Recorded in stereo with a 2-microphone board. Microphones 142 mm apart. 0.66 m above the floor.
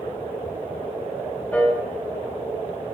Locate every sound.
1.5 s a piano: 10° left (ahead or behind), 1.8 m